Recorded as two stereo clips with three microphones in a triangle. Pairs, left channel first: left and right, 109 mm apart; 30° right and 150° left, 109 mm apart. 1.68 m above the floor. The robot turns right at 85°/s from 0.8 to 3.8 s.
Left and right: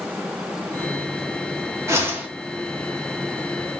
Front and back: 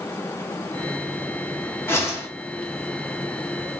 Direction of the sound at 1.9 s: 65° right.